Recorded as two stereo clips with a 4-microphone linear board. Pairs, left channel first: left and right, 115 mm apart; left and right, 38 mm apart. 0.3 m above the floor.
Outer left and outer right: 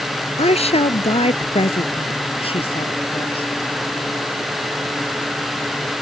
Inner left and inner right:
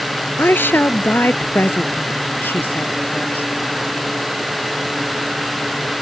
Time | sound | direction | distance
0.4 | a woman speaking | 65° left (ahead or behind) | ?